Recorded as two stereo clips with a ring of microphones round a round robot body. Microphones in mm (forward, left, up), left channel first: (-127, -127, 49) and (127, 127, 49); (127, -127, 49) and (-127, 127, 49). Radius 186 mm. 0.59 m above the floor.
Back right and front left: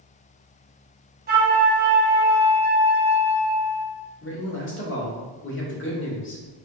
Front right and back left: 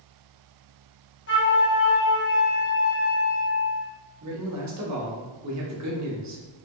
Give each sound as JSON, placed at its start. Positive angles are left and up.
{"t": 1.3, "sound": "a flute", "azimuth_deg": -5, "distance_m": 1.4}
{"t": 4.2, "sound": "a man speaking", "azimuth_deg": 170, "distance_m": 1.2}